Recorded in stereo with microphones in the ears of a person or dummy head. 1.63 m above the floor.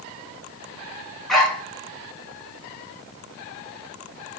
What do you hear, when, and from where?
1.3 s a dog barking: 5° right (ahead or behind), 3.5 m